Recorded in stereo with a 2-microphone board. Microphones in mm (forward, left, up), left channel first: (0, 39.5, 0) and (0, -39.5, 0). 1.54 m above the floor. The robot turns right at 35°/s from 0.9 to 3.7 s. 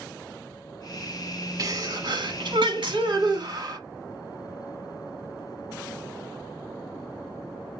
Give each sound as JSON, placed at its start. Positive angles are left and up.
{"t": 1.6, "sound": "a sneeze", "azimuth_deg": -130, "distance_m": 2.5}